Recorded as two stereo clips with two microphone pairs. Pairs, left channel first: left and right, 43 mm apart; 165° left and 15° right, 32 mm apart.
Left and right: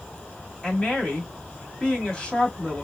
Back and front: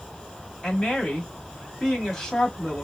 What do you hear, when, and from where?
0.6 s a woman speaking: 120° left, 1.5 m